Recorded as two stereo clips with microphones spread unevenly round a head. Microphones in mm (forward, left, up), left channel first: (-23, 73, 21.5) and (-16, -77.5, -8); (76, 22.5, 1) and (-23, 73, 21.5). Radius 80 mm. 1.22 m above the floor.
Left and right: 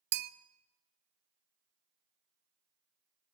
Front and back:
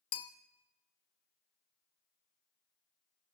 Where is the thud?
No thud in this recording.